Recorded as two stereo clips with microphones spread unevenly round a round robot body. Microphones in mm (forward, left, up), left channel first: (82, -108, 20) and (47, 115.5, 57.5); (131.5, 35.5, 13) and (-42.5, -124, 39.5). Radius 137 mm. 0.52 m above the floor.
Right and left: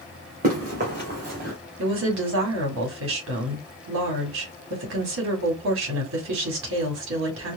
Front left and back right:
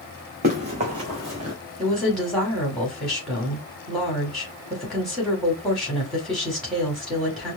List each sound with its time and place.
0.4 s running footsteps: 160° left, 2 m; by 1.6 s 155° left, 1.5 m
1.8 s a woman speaking: 125° left, 2 m